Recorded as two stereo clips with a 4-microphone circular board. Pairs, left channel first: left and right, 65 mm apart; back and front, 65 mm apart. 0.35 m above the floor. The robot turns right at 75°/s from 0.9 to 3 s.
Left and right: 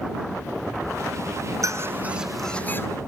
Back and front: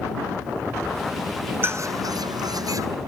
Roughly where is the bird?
Ahead right.